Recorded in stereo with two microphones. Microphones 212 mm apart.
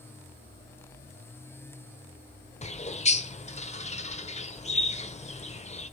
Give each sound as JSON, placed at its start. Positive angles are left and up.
{"t": 2.6, "sound": "a bird", "side_deg": 30, "distance_m": 1.0}